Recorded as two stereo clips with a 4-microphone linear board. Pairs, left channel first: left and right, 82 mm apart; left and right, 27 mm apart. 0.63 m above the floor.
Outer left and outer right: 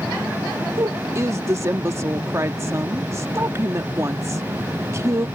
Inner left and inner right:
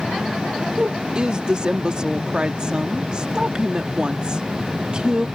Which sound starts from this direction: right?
A woman speaking, at 0.8 s.